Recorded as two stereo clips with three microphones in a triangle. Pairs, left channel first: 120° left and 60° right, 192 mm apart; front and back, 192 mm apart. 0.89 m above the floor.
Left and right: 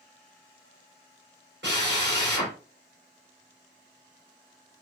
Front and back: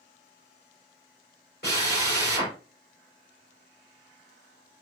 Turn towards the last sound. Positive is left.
turn(degrees=-35)